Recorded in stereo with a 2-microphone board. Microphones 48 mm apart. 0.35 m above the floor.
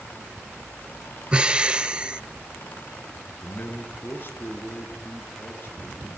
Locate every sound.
1.3 s breathing: 20° right (ahead or behind), 0.8 m
3.4 s a man speaking: 45° left (ahead or behind), 4 m